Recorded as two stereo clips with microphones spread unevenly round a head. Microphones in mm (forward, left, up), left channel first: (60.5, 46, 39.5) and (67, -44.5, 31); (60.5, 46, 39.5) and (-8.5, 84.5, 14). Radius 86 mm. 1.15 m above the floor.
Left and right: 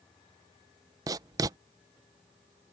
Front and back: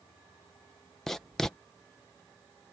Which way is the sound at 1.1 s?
125° right.